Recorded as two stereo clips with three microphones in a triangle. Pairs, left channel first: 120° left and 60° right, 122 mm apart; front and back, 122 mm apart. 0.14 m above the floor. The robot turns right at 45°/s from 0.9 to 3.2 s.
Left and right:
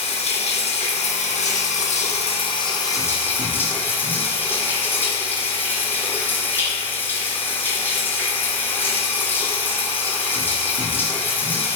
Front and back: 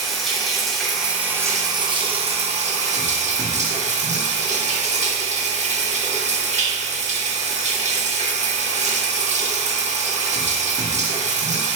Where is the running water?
90° left, 0.7 m; by 11.8 s 165° right, 0.7 m.